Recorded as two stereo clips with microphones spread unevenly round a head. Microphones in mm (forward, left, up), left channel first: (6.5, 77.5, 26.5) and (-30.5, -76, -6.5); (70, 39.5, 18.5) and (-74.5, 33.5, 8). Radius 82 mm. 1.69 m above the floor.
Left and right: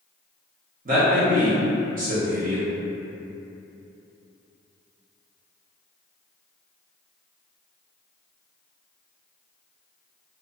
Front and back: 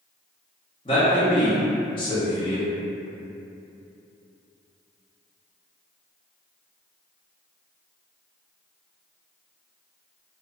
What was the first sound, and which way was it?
A man speaking, 60° right.